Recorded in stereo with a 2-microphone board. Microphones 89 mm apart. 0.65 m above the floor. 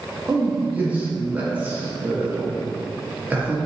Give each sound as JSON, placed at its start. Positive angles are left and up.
{"t": 0.3, "sound": "a man speaking", "side_deg": -20, "distance_m": 0.7}